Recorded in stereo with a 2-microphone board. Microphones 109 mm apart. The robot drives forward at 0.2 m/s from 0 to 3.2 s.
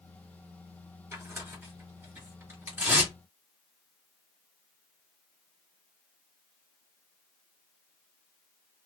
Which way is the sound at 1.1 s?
20° right (ahead or behind).